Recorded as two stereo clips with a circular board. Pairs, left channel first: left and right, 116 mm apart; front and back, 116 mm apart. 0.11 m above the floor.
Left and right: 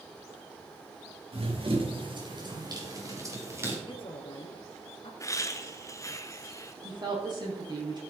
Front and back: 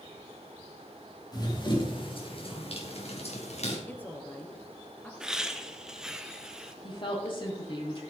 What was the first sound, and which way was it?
Running footsteps, 55° right.